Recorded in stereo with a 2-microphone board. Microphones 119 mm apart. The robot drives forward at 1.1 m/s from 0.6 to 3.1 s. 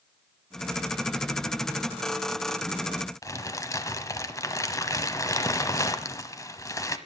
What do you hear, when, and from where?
3.2 s crumpling: 25° left (ahead or behind), 1.2 m